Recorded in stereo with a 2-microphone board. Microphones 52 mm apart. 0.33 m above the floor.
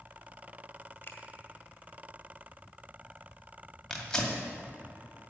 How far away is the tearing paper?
About 2 m.